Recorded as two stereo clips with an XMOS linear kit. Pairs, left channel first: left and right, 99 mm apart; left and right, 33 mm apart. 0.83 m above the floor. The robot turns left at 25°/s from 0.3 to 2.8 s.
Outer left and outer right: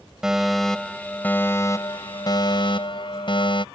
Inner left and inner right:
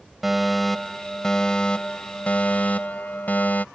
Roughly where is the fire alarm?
Behind.